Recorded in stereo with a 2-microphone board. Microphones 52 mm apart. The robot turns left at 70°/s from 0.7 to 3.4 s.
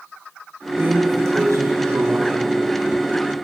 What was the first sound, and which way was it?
A drawer, 40° right.